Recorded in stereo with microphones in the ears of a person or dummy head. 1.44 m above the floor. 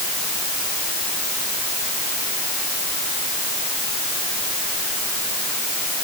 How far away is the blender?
No blender in this recording.